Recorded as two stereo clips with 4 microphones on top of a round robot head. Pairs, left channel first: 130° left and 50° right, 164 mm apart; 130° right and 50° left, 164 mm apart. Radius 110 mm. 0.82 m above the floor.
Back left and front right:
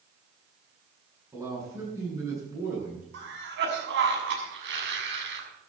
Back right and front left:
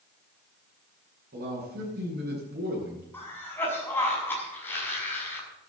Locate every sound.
1.3 s a man speaking: 20° left, 8 m
3.1 s a cough: 50° right, 6 m